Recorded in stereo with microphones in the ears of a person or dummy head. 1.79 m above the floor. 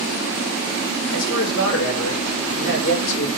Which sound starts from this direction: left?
A man speaking, at 1.1 s.